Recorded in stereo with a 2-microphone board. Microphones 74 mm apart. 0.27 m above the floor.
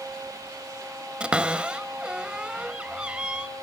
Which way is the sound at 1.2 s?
15° right (ahead or behind).